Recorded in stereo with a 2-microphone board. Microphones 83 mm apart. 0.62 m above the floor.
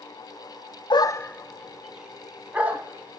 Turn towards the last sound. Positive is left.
turn(degrees=-20)  # may be behind; listen again after turning